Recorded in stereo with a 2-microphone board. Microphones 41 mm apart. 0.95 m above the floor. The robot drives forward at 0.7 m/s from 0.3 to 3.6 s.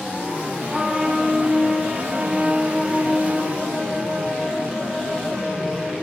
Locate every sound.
0.7 s a trumpet: centre (ahead or behind), 6 m